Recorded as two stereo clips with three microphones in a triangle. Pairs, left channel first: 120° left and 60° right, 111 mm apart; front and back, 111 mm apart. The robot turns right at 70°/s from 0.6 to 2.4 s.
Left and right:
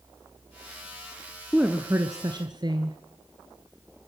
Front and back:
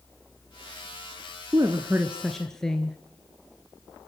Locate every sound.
1.5 s a woman speaking: 145° right, 1.4 m; by 3.0 s 85° right, 1.4 m